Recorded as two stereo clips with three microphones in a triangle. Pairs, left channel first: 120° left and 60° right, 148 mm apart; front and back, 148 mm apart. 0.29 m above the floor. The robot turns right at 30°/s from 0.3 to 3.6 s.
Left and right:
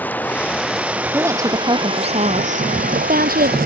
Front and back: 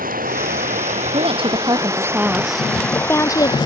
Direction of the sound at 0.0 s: 160° right.